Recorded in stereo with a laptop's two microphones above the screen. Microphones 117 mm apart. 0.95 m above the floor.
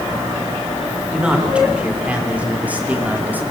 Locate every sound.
1.1 s a man speaking: 10° right (ahead or behind), 3.5 m; by 3.4 s 15° right (ahead or behind), 2 m